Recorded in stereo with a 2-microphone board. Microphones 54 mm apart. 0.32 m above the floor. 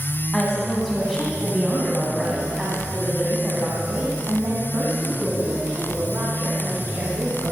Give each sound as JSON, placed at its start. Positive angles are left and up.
{"t": 0.3, "sound": "a woman speaking", "side_deg": 10, "distance_m": 3.0}